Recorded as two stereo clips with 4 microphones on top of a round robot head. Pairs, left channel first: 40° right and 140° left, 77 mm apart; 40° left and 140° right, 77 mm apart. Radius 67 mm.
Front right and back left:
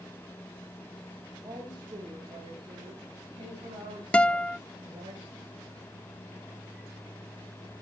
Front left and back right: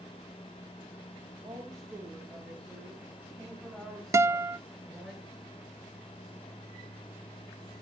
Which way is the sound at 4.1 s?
110° right.